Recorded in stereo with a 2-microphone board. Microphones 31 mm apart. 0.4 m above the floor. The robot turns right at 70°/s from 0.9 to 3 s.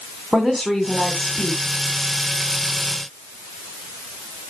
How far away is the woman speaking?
About 2.5 m.